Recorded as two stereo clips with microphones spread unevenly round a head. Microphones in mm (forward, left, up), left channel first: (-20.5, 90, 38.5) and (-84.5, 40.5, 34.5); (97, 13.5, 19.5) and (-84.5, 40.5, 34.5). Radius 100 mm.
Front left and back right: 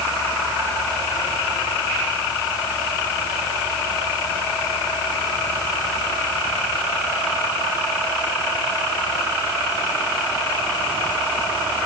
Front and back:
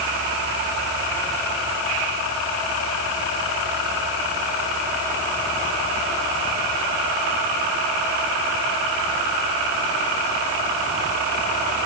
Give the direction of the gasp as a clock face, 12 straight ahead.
No gasp in this recording.